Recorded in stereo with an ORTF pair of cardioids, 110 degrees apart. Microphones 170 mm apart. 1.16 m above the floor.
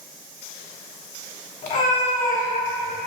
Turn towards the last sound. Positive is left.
turn(degrees=55)